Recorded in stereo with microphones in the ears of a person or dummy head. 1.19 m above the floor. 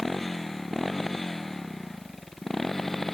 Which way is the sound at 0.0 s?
5° left (ahead or behind).